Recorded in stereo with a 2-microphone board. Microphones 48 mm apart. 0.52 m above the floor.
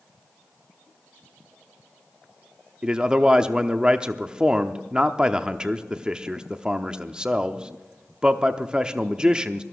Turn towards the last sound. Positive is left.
turn(degrees=-20)  # may be behind; listen again after turning